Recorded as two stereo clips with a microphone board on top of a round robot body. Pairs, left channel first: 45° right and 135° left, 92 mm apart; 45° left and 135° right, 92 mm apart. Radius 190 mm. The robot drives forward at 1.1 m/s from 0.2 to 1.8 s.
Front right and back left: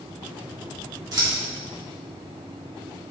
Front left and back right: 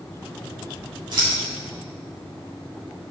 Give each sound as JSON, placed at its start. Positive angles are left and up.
{"t": 1.1, "sound": "scissors", "azimuth_deg": 180, "distance_m": 4.5}